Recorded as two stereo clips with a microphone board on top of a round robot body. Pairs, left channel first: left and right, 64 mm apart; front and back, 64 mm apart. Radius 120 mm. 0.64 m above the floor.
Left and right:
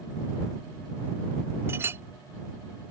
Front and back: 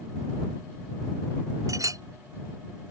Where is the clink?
145° right.